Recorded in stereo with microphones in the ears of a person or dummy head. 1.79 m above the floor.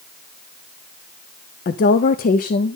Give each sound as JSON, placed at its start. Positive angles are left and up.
{"t": 1.6, "sound": "a woman speaking", "side_deg": 45, "distance_m": 0.6}